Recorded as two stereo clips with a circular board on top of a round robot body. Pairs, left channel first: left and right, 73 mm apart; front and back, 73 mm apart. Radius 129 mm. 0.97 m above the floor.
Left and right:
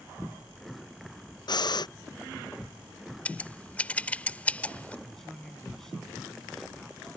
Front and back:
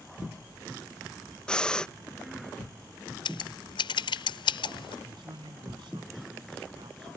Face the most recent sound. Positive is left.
turn(degrees=175)